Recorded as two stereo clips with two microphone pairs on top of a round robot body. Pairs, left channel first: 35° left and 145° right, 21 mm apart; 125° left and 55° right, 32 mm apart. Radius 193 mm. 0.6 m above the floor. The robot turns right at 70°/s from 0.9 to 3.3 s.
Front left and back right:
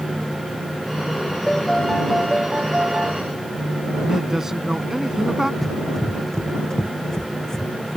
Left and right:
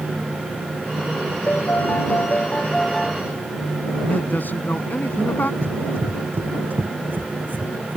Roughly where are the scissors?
No scissors in this recording.